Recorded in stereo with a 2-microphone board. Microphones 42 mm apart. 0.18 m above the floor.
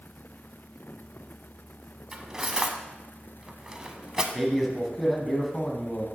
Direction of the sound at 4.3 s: 5° left (ahead or behind).